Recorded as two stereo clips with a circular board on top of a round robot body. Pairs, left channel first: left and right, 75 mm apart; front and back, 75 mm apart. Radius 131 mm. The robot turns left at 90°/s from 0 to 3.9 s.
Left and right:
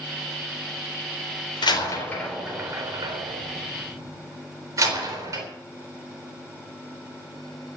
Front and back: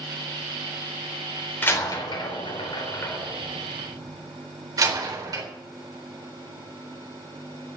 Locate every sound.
1.6 s a door slam: 70° left, 4 m; by 5.5 s 135° right, 4 m